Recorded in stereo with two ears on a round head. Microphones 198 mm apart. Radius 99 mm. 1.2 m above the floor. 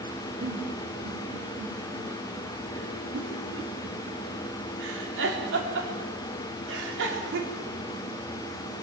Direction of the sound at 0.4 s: 60° right (ahead or behind).